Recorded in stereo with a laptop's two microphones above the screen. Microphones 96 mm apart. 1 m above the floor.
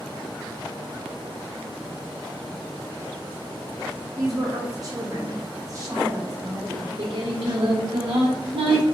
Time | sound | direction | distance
4.2 | a woman speaking | 35° right (ahead or behind) | 0.8 m
6.7 | singing | 60° right (ahead or behind) | 0.8 m